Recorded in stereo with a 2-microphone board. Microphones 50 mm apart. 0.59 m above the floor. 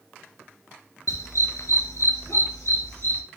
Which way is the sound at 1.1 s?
80° left.